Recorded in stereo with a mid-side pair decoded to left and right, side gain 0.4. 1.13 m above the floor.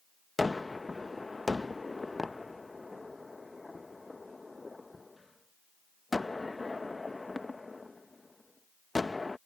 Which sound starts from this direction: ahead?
A gunshot, at 0.4 s.